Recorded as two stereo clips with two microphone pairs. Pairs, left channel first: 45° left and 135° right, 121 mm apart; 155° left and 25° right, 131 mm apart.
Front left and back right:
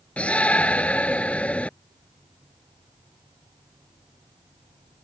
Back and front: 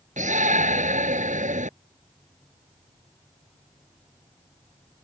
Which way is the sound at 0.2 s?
35° right.